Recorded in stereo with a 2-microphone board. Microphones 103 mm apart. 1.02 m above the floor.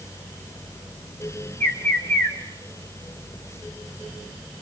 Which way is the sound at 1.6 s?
25° left (ahead or behind).